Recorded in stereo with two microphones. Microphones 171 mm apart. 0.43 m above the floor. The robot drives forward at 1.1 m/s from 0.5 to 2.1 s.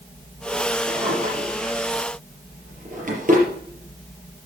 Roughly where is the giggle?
No giggle in this recording.